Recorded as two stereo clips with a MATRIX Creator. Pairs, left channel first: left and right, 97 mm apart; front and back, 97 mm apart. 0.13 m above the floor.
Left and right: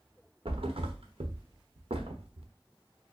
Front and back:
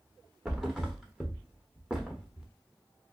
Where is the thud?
95° right, 1.1 m.